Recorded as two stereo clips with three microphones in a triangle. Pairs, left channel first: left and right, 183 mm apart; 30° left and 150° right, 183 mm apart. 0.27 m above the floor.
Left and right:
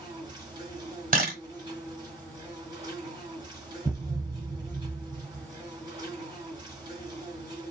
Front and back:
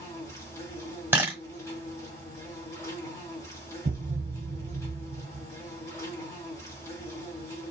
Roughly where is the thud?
Behind.